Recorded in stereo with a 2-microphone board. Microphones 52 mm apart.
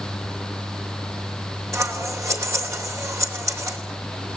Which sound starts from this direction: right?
Scissors, at 1.7 s.